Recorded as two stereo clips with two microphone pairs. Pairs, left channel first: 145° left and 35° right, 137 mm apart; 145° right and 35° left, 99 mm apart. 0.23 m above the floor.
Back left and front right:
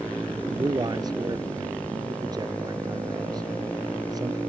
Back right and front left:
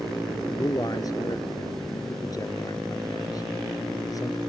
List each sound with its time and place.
0.5 s a man speaking: 95° right